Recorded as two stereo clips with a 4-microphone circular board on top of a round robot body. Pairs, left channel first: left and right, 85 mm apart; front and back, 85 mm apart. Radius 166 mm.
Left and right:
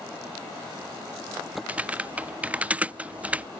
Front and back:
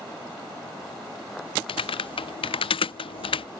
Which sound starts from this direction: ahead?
Typing on a keyboard, at 1.7 s.